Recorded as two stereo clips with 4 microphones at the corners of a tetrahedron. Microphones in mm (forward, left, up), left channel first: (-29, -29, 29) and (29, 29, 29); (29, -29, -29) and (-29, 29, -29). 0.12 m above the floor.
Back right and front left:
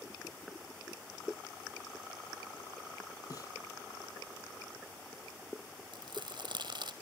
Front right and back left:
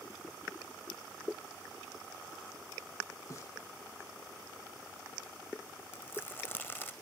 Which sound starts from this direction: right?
A snare drum, at 3.3 s.